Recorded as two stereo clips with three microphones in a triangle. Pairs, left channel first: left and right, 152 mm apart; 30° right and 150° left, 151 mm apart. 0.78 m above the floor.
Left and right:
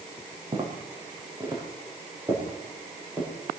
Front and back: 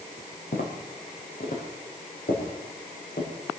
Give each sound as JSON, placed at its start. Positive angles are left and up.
{"t": 0.5, "sound": "footsteps", "azimuth_deg": -35, "distance_m": 4.0}